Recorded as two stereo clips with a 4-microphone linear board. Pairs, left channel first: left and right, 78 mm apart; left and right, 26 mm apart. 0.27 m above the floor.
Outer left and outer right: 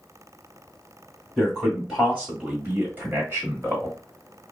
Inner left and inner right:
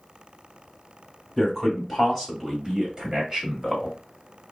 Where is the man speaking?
5° right (ahead or behind), 1.4 m; by 4.0 s 35° right (ahead or behind), 1.5 m.